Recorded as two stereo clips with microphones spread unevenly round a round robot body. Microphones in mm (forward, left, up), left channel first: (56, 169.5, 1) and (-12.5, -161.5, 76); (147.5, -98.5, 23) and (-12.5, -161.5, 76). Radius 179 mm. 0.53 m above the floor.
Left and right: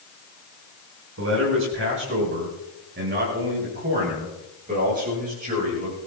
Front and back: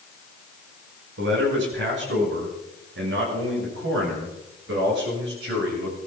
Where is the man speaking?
160° right, 5 m; by 6.0 s 175° right, 8.5 m.